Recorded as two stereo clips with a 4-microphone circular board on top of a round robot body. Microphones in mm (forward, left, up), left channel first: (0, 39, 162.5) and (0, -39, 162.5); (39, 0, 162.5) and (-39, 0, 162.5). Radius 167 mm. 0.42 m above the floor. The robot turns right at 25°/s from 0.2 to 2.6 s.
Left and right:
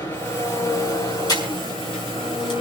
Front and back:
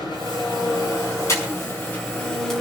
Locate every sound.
0.0 s an engine running: 25° left, 5 m; by 2.6 s 85° left, 5 m
1.3 s breathing: 55° left, 6 m; by 2.5 s 85° left, 6 m